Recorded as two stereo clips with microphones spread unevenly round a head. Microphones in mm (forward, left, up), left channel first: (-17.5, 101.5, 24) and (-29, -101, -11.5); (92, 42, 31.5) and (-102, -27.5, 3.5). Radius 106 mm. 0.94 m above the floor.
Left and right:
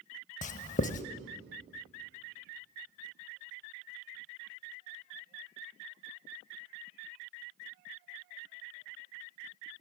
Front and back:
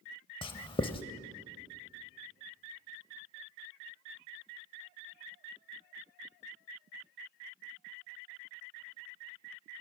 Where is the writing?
70° left, 0.9 m.